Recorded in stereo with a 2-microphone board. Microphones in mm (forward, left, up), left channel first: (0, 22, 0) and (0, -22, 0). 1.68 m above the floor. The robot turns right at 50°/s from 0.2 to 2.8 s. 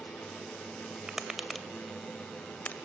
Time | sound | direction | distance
1.1 | tapping | 15° right (ahead or behind) | 2 m